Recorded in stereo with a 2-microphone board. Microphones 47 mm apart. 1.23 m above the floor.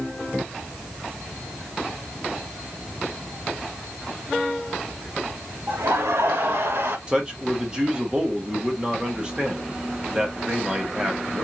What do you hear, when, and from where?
5.7 s laughter: 80° right, 2 m; by 7.0 s 60° right (ahead or behind), 1.3 m
7.1 s a man speaking: 25° right (ahead or behind), 1.9 m